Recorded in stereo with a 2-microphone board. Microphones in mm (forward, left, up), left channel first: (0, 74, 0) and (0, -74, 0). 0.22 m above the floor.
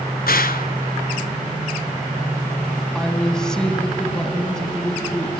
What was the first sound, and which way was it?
A gunshot, 80° left.